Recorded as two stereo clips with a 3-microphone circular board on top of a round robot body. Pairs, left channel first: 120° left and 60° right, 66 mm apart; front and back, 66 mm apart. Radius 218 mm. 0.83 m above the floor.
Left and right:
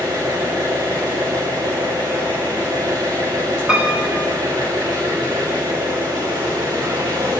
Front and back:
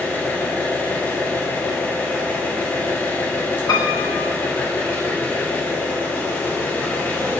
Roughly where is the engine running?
Ahead right.